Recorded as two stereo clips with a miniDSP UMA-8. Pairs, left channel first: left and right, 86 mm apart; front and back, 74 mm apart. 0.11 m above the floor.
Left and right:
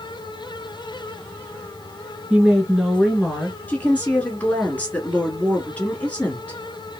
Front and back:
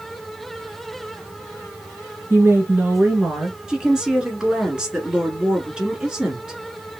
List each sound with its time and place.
2.3 s a woman speaking: 160° right, 1.5 m; by 3.6 s 150° left, 1.5 m
3.7 s a woman speaking: 120° left, 1.4 m